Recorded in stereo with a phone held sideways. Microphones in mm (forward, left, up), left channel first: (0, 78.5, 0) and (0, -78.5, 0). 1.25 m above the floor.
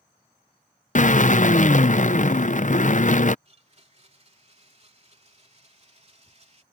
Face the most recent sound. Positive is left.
turn(degrees=-45)  # may be behind; listen again after turning